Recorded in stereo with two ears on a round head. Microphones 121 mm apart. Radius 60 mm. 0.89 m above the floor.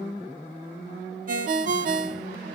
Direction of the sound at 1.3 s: 65° right (ahead or behind).